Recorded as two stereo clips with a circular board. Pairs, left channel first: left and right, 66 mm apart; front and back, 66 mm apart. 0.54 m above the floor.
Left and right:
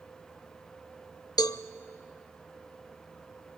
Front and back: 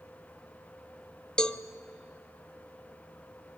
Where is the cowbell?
75° left, 0.6 m.